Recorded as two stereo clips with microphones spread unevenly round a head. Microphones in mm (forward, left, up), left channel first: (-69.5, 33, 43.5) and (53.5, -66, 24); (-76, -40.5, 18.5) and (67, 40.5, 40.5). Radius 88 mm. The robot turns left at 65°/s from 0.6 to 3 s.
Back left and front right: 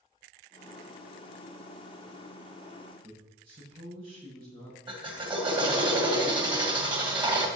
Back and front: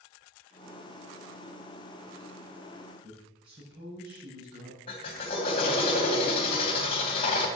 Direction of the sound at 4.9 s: 95° right.